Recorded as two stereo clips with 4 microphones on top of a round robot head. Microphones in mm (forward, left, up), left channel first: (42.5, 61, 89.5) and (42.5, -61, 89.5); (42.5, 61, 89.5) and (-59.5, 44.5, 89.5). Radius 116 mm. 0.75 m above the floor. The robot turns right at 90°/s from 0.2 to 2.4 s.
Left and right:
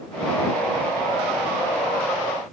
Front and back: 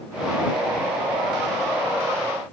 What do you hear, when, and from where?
Only background noise.